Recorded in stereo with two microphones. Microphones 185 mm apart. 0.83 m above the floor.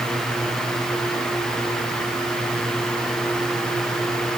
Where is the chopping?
No chopping in this recording.